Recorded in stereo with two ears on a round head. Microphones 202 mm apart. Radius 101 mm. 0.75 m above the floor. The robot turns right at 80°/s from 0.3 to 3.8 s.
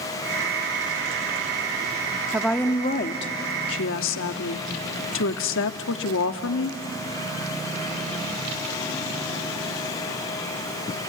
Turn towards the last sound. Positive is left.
turn(degrees=105)